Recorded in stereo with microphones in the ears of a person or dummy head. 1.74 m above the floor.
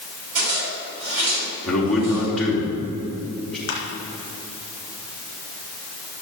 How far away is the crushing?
About 2.5 m.